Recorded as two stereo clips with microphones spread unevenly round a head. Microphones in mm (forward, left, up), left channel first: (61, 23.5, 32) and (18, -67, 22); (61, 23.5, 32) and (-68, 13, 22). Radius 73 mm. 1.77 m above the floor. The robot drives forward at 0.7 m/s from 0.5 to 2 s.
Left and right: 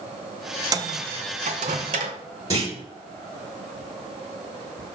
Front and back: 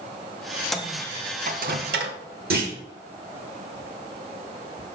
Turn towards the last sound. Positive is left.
turn(degrees=175)